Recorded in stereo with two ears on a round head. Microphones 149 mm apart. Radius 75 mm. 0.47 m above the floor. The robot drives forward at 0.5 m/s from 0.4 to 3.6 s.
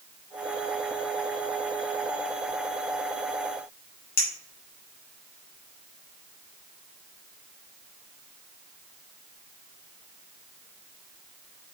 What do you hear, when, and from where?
4.2 s a clink: 65° left (ahead or behind), 3 m